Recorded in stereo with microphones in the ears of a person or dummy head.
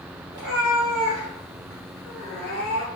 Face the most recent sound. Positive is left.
turn(degrees=20)  # may be behind; listen again after turning